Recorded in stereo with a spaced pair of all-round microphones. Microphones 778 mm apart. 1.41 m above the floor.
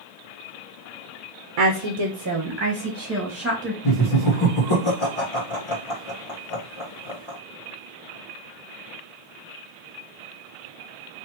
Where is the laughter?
45° left (ahead or behind), 1.3 m.